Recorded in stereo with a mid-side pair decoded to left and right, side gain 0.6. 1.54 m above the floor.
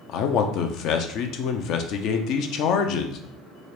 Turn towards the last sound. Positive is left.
turn(degrees=65)